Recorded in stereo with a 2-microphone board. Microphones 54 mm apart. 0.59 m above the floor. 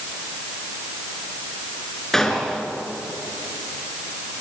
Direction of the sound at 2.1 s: 5° left (ahead or behind).